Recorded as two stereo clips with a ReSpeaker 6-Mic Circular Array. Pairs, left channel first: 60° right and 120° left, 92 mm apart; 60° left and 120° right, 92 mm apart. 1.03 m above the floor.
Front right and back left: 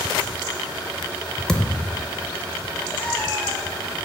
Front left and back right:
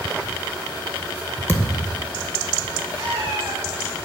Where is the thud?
15° left, 0.7 m.